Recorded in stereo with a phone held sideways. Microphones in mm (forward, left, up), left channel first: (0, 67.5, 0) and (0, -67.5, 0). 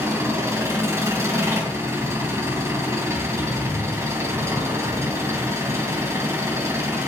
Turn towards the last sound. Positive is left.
turn(degrees=-20)  # may be behind; listen again after turning